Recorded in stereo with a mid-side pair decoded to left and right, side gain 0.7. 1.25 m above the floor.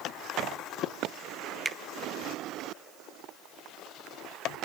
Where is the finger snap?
10° right, 0.9 m.